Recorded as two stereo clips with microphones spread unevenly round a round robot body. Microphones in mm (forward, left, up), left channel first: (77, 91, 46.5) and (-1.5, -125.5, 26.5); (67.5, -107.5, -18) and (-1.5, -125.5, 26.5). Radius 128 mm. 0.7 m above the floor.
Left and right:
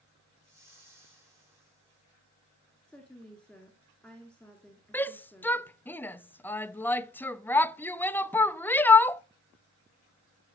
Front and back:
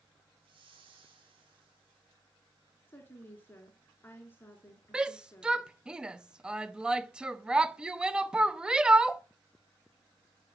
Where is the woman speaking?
20° right, 2 m.